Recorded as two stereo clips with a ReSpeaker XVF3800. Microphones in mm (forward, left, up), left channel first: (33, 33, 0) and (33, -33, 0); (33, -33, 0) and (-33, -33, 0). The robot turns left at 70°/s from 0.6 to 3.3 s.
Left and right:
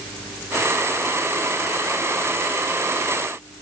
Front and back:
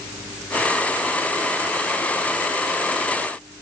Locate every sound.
Only background noise.